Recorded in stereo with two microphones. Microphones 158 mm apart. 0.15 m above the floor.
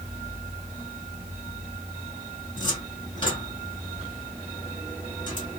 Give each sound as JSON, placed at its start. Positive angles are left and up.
{"t": 2.6, "sound": "a cupboard door", "side_deg": 30, "distance_m": 2.5}